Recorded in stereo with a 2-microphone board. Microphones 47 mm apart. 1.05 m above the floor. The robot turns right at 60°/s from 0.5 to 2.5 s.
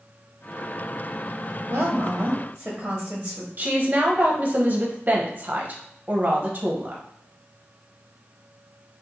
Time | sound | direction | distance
1.7 | a woman speaking | 75° right | 0.9 m
3.6 | a woman speaking | 35° right (ahead or behind) | 0.8 m